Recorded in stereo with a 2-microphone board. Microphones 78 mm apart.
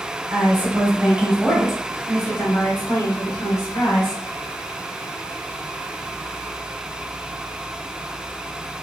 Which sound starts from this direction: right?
A woman speaking, at 0.3 s.